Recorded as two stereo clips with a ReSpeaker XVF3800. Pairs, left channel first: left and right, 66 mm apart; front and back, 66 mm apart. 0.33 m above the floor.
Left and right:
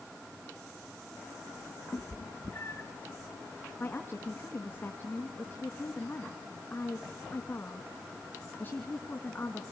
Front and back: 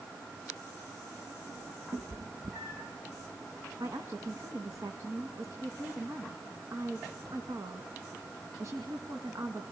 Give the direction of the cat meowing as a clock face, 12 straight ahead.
7 o'clock.